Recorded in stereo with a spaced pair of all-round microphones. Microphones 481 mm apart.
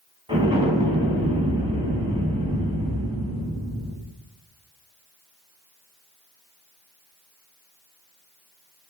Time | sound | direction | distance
0.3 | an explosion | 10° right (ahead or behind) | 3 m